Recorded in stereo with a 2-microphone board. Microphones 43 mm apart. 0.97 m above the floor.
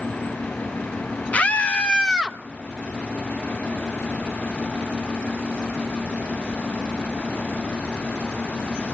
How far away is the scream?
About 0.8 m.